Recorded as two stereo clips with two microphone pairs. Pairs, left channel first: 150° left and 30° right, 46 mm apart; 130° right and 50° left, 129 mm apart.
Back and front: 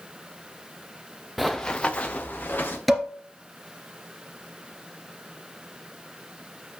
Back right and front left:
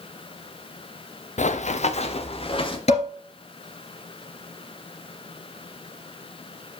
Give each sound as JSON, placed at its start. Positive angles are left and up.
{"t": 1.4, "sound": "running footsteps", "azimuth_deg": -120, "distance_m": 0.8}
{"t": 2.9, "sound": "dishes clattering", "azimuth_deg": -120, "distance_m": 2.0}